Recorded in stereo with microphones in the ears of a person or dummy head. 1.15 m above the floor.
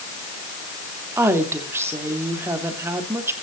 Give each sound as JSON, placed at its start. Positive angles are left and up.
{"t": 1.2, "sound": "a woman speaking", "side_deg": -15, "distance_m": 2.5}